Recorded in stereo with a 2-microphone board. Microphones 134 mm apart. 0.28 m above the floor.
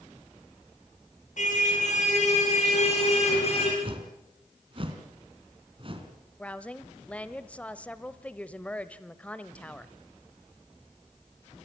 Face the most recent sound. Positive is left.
turn(degrees=10)  # may be behind; listen again after turning